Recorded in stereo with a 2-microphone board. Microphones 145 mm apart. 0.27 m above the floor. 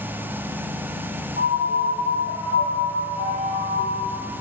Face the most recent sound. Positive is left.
turn(degrees=-40)  # may be behind; listen again after turning